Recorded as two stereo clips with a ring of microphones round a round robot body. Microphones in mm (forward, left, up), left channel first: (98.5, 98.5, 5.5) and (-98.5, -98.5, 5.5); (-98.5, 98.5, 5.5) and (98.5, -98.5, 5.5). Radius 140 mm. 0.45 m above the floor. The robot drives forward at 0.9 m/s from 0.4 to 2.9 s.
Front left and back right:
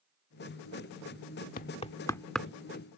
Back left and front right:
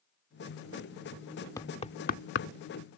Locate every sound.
1.6 s knocking: 65° left; by 2.5 s 140° left